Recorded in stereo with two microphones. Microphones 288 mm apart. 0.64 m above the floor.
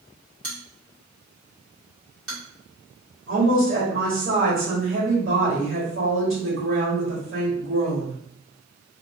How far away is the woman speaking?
About 1.3 m.